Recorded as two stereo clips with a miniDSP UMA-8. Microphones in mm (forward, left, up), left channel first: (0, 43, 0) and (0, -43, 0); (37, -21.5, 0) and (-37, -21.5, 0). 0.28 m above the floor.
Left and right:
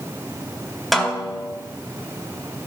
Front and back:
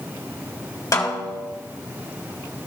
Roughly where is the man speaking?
I don't hear a man speaking.